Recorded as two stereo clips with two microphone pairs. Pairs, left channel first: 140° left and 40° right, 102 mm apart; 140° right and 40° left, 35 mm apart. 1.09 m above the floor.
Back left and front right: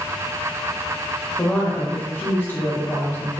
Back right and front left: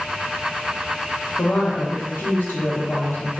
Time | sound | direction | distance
1.4 | a woman speaking | 150° right | 0.8 m